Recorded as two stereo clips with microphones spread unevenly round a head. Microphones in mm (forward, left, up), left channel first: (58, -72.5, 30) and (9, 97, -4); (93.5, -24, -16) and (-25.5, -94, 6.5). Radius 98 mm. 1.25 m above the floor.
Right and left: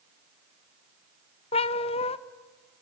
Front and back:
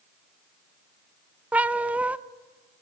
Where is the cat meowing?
85° right, 0.5 m.